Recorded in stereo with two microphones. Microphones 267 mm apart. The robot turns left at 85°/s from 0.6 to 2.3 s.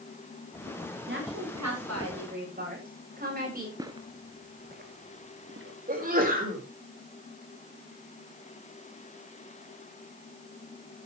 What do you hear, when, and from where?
1.1 s a woman speaking: 40° right, 8.5 m; by 3.7 s 145° right, 8.5 m
3.8 s footsteps: 15° right (ahead or behind), 1.3 m; by 5.8 s 50° right (ahead or behind), 2 m
5.9 s a sneeze: 35° right (ahead or behind), 4.5 m